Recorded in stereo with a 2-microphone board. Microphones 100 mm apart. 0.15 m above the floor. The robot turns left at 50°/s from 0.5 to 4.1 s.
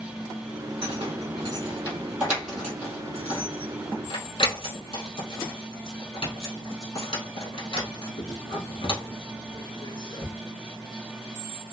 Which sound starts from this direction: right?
Keys jangling, at 0.8 s.